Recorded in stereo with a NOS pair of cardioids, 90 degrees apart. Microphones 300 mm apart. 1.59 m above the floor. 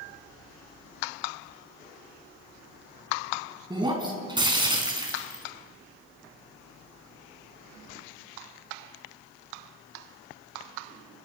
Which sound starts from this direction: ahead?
Breaking glass, at 3.7 s.